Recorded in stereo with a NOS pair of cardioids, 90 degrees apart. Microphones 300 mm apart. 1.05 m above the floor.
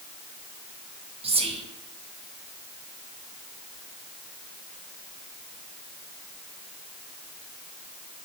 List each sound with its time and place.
1.2 s whispering: 20° right, 0.5 m